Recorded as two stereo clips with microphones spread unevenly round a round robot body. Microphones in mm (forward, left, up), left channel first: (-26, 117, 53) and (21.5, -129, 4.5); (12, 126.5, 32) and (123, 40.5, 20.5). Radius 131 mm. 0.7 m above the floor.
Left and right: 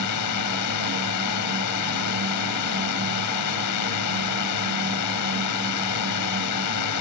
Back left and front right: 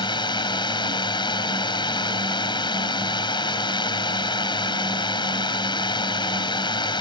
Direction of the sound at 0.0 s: 85° left.